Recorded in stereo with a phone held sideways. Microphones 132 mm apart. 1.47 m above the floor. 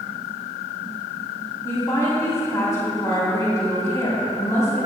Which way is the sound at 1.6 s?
25° left (ahead or behind).